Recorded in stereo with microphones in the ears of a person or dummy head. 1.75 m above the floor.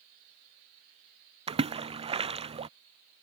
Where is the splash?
30° right (ahead or behind).